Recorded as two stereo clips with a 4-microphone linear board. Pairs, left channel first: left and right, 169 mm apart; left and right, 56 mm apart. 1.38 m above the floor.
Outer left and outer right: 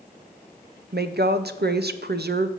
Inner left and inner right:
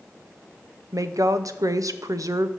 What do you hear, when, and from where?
0.9 s a woman speaking: 75° right (ahead or behind), 0.5 m